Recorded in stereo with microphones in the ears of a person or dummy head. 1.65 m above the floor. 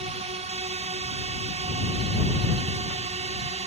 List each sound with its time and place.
0.0 s a drone: 30° right (ahead or behind)